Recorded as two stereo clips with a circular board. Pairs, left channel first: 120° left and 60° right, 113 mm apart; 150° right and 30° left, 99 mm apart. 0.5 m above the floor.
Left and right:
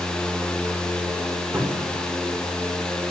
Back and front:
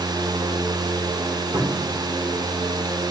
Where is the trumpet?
I don't hear a trumpet.